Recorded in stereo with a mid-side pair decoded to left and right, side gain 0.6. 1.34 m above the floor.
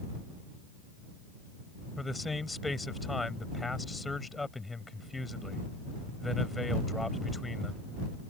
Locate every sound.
2.0 s a man speaking: 15° left